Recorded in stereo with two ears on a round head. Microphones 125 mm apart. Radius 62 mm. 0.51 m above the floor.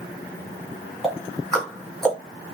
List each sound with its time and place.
1.0 s ticking: 5° left (ahead or behind), 2 m